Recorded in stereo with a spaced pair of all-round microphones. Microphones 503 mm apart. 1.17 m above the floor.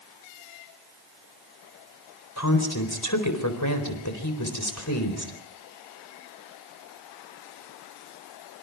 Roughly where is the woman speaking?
Left.